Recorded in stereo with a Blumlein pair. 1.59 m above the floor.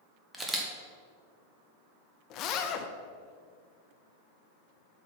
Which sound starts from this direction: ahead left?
A zipper, at 2.3 s.